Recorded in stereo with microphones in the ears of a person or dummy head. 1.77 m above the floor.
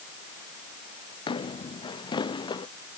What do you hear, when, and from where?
1.3 s footsteps: 25° left (ahead or behind); by 2.7 s 20° left (ahead or behind)